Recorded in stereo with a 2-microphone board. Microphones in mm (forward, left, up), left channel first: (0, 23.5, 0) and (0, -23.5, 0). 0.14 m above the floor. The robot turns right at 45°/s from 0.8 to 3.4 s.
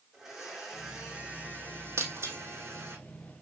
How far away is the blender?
About 5 m.